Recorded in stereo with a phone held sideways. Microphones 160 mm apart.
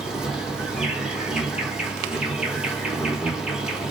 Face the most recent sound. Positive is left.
turn(degrees=-5)  # may be behind; listen again after turning